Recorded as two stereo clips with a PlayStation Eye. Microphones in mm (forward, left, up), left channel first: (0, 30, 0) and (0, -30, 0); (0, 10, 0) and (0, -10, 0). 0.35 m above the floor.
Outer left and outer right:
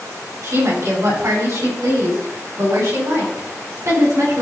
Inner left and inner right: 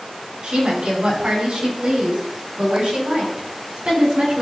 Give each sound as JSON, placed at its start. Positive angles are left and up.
{"t": 0.4, "sound": "a woman speaking", "side_deg": -65, "distance_m": 3.0}